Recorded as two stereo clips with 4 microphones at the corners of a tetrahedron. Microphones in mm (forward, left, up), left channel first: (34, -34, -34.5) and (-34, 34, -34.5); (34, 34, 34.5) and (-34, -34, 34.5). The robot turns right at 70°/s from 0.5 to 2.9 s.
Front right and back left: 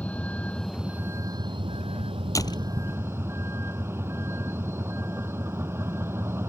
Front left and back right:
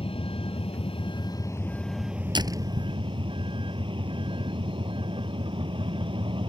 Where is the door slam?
100° right; by 2.7 s 75° right.